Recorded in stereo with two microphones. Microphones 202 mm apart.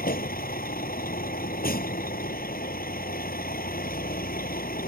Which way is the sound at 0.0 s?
45° left (ahead or behind).